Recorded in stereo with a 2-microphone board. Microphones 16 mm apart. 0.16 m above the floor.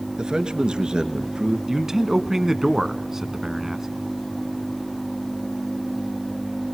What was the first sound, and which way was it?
A man speaking, 55° right (ahead or behind).